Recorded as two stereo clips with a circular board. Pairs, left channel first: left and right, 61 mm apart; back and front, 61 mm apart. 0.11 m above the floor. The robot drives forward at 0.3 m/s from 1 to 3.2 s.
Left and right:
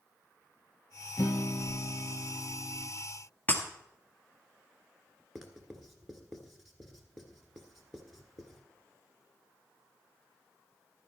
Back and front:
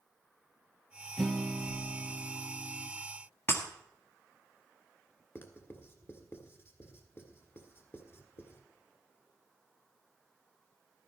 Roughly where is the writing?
Behind.